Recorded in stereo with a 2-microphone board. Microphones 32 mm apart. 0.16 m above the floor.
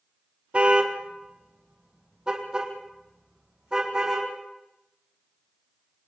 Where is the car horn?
40° right (ahead or behind), 2 m; by 4.3 s 20° right (ahead or behind), 6 m.